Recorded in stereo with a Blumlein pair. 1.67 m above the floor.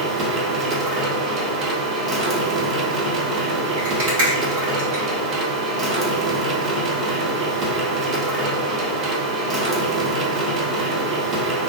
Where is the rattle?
50° right, 1.9 m.